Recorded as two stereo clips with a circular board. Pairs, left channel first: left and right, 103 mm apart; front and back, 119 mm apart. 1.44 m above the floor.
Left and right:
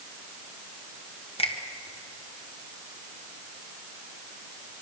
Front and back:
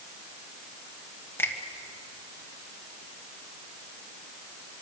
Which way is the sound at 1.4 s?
70° left.